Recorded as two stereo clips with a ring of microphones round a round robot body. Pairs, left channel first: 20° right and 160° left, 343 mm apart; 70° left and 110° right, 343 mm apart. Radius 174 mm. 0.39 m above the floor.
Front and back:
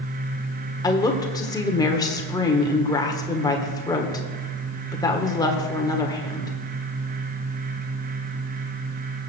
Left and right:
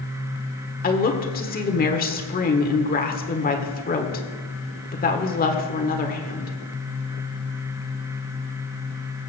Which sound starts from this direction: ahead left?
A woman speaking, at 0.8 s.